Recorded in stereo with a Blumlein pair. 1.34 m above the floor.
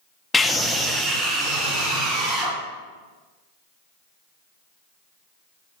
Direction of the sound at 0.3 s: 15° left.